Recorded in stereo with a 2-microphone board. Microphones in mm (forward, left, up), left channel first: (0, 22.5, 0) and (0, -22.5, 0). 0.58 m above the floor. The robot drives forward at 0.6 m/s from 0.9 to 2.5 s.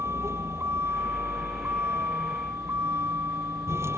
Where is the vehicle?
90° right; by 4.0 s 85° right.